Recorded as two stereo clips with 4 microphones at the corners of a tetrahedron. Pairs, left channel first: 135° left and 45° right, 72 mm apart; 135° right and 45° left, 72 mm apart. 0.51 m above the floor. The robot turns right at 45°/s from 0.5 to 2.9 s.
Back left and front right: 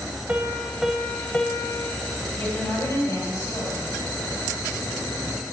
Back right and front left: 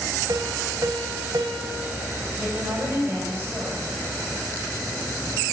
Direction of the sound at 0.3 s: 25° left.